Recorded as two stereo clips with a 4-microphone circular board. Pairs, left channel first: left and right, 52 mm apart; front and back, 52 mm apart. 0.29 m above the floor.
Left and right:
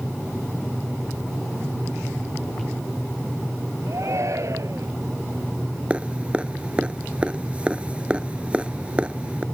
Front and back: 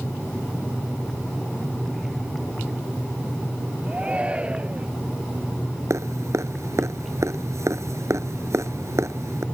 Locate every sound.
3.9 s a shout: 110° right
5.9 s dripping: 155° right